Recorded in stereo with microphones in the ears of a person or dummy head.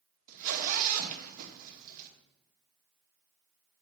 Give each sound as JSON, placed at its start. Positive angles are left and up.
{"t": 0.3, "sound": "a zipper", "side_deg": -45, "distance_m": 1.5}